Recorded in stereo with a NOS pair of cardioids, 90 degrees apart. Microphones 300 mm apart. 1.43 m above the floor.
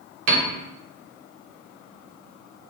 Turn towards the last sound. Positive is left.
turn(degrees=-70)